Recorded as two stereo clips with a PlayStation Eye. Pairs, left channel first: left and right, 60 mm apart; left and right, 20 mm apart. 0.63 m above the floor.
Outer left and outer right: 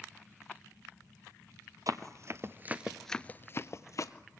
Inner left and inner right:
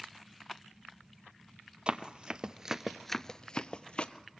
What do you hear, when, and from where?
1.9 s running footsteps: 60° right (ahead or behind), 1.1 m; by 4.1 s 60° left (ahead or behind), 1.1 m